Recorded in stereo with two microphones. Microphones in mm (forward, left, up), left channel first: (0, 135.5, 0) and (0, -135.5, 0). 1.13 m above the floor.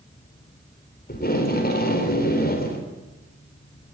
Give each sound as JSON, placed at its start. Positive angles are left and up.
{"t": 1.1, "sound": "tape being pulled", "side_deg": 35, "distance_m": 4.0}